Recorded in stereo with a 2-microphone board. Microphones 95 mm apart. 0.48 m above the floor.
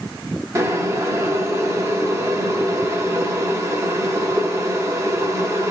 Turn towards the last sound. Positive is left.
turn(degrees=-30)  # may be behind; listen again after turning